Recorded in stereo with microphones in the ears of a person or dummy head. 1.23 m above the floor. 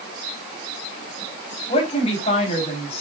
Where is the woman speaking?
40° left (ahead or behind), 4 m.